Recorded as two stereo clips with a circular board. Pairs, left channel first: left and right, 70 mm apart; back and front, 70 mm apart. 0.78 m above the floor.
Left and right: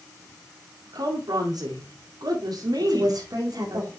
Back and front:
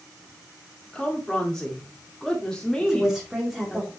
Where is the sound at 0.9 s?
95° right, 2 m.